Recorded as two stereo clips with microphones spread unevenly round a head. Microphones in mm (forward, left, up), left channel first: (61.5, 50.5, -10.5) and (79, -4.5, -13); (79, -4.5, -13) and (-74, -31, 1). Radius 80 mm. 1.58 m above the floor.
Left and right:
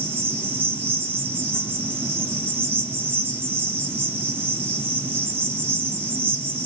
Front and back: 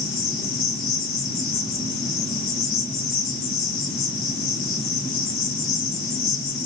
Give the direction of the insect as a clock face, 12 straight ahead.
1 o'clock.